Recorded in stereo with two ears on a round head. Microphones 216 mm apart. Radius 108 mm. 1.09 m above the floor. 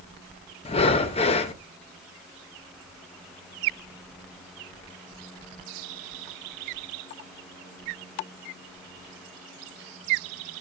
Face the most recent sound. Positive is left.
turn(degrees=25)  # may be behind; listen again after turning